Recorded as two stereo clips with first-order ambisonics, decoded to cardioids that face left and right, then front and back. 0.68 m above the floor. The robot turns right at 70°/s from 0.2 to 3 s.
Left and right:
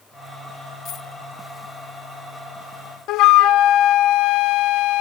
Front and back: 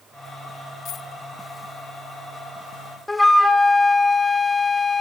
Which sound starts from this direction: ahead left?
A dropped coin, at 0.8 s.